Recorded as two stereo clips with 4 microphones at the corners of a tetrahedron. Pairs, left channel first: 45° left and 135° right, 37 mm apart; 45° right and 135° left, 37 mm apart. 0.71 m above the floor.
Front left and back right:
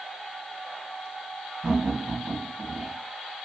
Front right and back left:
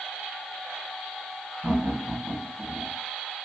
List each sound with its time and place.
1.6 s laughter: 140° left, 2.5 m